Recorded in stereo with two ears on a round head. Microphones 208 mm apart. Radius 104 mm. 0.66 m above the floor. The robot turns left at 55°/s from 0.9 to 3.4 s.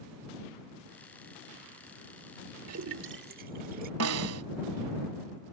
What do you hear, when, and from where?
2.7 s a splash: 75° right (ahead or behind); by 3.9 s 40° right (ahead or behind)
4.0 s a snare drum: 70° right (ahead or behind)